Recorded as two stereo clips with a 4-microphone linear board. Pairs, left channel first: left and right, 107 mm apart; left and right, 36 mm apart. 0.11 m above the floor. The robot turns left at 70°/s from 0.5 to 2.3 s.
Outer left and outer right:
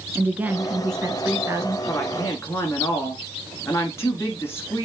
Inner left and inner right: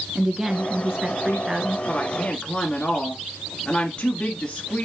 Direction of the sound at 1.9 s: 20° left (ahead or behind).